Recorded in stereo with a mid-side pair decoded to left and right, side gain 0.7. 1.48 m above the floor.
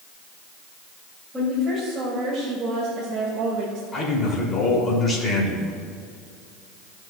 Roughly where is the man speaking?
Ahead left.